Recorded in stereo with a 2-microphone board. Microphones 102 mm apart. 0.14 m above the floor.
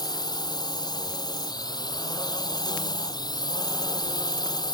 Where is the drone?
40° left (ahead or behind).